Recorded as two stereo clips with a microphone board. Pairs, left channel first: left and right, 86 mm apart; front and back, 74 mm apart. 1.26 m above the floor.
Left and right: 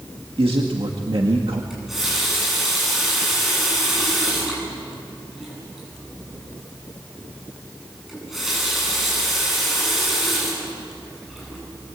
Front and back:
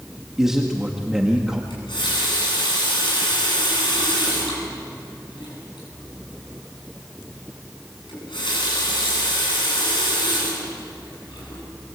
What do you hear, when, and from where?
0.4 s a man speaking: 95° right, 1.9 m
1.7 s a running tap: 5° right, 9 m